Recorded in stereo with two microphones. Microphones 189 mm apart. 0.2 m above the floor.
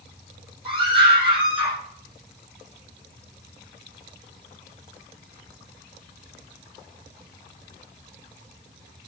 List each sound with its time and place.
0.7 s a scream: 25° right (ahead or behind), 7.5 m; by 1.8 s 35° right (ahead or behind), 7.5 m